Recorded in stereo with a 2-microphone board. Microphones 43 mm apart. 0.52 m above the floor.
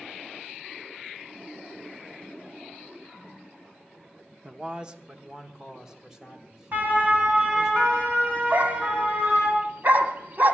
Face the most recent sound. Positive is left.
turn(degrees=-45)  # may be behind; listen again after turning